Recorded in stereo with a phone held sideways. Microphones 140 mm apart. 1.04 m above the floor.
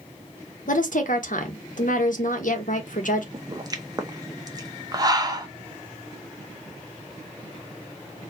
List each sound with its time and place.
0.7 s a woman speaking: 70° left (ahead or behind), 1.1 m
3.3 s a pop: 30° right (ahead or behind), 0.7 m